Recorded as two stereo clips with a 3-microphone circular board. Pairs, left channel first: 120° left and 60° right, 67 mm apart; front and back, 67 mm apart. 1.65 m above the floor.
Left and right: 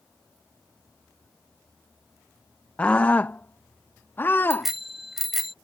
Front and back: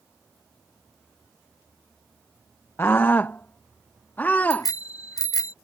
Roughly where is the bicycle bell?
Ahead left.